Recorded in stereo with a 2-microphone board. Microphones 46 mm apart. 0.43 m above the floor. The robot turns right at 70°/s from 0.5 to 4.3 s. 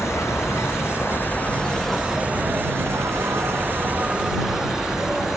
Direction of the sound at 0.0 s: 80° left.